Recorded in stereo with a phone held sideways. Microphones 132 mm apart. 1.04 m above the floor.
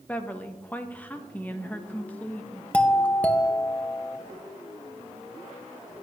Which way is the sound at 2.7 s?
10° left (ahead or behind).